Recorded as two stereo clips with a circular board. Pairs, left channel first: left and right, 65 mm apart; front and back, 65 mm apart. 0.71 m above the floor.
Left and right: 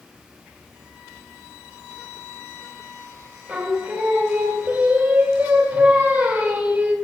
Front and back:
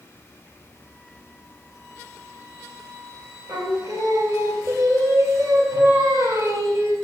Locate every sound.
3.5 s singing: 160° right, 1.9 m